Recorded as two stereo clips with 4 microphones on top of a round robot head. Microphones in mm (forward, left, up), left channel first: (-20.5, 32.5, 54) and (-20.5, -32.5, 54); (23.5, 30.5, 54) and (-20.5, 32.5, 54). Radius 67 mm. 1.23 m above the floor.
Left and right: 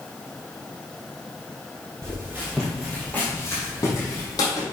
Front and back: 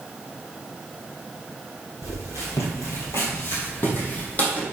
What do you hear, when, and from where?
2.0 s footsteps: 30° right, 2.0 m; by 4.6 s 55° left, 3 m